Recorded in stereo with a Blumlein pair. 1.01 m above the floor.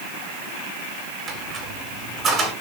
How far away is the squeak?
About 1.2 m.